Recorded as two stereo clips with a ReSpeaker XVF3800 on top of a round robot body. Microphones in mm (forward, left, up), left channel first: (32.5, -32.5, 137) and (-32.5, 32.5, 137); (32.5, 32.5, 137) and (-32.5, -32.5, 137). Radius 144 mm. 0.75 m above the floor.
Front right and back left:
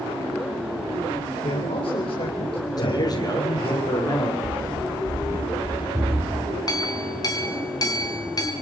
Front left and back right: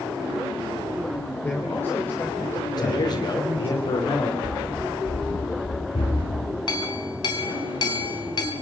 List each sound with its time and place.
1.4 s a man speaking: 25° right, 4 m
2.8 s a man speaking: straight ahead, 2.5 m
4.4 s running footsteps: 90° left, 3 m; by 6.5 s 75° left, 4 m
6.7 s a clink: 5° left, 3 m